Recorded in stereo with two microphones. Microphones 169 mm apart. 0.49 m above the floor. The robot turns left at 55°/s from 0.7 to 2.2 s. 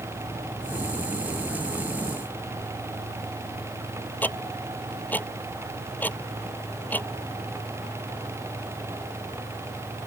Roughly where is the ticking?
Centre.